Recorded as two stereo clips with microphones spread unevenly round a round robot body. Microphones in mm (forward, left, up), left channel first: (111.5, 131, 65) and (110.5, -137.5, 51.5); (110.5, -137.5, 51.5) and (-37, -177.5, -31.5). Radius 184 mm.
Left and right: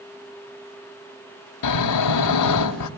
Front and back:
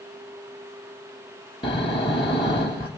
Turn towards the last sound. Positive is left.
turn(degrees=95)